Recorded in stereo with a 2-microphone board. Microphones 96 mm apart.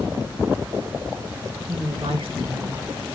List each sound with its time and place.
1.7 s a woman speaking: 85° right, 3 m